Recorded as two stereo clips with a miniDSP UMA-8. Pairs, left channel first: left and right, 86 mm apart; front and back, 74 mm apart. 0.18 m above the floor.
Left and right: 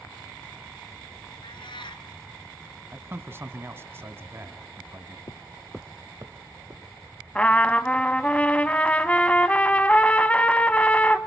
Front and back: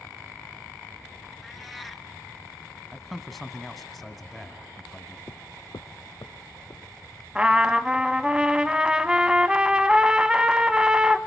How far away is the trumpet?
About 0.7 m.